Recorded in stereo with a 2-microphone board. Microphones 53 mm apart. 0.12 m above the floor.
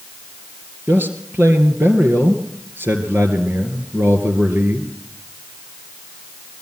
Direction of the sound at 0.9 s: 40° right (ahead or behind).